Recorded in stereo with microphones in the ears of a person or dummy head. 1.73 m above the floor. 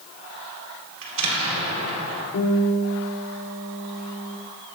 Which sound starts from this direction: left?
A guitar, at 2.3 s.